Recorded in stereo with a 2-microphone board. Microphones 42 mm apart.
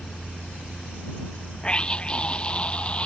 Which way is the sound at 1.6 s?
20° left (ahead or behind).